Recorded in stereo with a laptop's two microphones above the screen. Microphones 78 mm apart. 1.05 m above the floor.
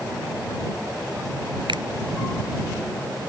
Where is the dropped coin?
No dropped coin in this recording.